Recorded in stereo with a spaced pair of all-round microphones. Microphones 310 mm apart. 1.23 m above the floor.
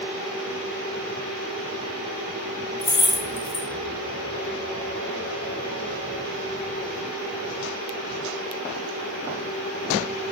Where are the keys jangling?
60° left (ahead or behind), 0.6 m.